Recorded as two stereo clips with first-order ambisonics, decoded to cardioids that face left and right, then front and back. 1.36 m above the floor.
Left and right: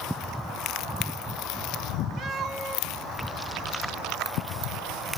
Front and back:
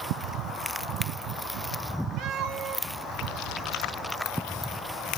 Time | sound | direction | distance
2.2 | a cat meowing | 145° right | 1.2 m